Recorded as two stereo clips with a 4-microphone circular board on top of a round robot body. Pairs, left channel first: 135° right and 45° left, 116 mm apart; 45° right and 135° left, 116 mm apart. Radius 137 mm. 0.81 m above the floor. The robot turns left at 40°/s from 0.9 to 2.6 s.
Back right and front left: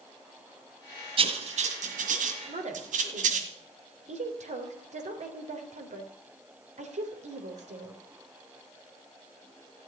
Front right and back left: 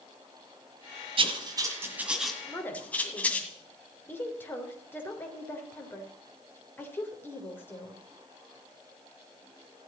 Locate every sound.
1.2 s writing: 90° left, 1.6 m; by 3.5 s 35° left, 1.6 m
2.5 s a woman speaking: 35° left, 3.5 m; by 8.0 s 30° left, 3.5 m